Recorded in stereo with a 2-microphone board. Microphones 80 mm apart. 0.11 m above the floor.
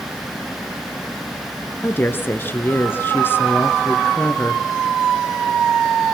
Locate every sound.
1.8 s a woman speaking: 25° left (ahead or behind), 1.4 m